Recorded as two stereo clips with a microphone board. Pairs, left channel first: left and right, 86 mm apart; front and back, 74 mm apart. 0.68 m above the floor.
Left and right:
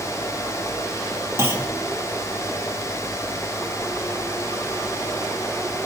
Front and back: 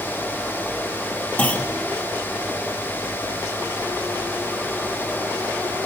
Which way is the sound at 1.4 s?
55° right.